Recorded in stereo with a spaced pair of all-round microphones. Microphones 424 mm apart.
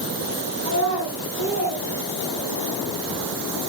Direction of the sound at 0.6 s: 35° right (ahead or behind).